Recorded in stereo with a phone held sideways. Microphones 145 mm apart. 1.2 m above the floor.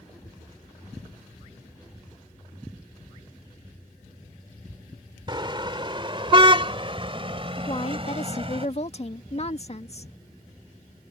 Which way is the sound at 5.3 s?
35° right (ahead or behind).